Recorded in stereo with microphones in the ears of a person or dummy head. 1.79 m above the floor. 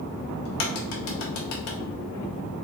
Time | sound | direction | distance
0.5 | a crack | 60° left (ahead or behind) | 0.8 m